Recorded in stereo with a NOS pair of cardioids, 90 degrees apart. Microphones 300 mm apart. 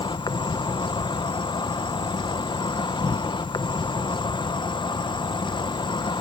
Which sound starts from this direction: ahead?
An insect, at 0.0 s.